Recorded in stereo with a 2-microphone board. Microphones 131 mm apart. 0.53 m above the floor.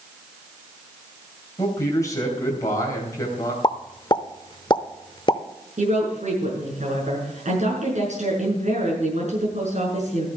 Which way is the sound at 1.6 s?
25° left (ahead or behind).